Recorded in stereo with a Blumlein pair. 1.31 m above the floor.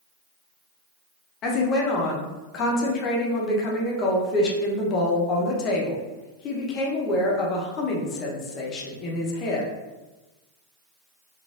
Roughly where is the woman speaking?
Ahead left.